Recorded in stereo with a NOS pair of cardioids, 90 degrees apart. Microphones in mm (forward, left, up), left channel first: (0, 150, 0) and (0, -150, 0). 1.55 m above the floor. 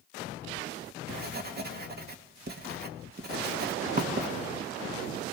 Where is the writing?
35° right, 2 m.